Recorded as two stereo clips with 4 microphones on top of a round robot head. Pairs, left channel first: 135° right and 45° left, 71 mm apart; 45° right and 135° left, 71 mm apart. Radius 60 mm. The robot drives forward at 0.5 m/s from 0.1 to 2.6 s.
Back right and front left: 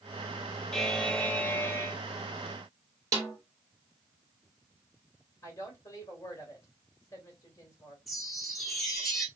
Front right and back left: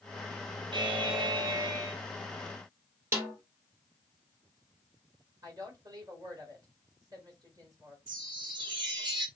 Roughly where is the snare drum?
Left.